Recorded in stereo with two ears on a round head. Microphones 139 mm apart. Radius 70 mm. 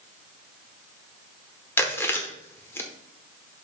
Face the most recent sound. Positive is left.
turn(degrees=15)  # may be behind; listen again after turning